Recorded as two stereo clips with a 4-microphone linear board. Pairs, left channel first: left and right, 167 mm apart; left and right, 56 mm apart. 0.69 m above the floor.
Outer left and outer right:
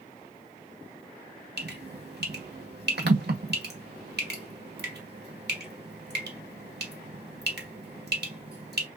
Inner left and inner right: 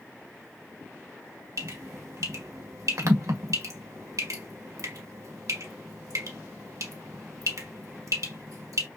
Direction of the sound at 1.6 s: 80° right.